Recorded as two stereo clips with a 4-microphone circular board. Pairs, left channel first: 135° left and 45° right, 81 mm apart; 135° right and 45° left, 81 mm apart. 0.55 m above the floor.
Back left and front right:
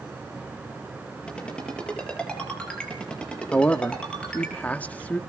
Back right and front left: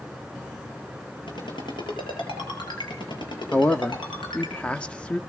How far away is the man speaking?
About 0.7 m.